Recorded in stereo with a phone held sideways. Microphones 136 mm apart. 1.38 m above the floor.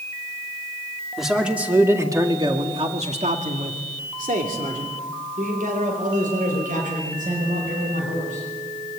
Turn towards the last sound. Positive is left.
turn(degrees=-70)  # may be behind; listen again after turning